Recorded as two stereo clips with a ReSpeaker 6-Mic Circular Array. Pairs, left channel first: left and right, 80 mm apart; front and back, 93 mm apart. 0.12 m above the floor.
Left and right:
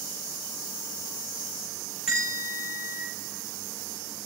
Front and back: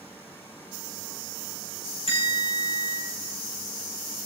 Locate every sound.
2.1 s a bell: 5° right, 6 m